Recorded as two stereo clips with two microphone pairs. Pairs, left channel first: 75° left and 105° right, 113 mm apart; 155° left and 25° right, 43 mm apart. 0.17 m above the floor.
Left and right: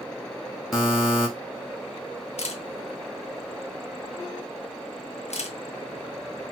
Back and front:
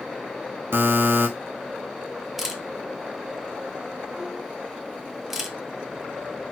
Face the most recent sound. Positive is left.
turn(degrees=60)